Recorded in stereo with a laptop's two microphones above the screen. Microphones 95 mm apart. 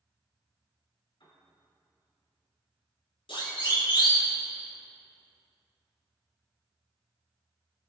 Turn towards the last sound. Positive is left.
turn(degrees=65)  # may be behind; listen again after turning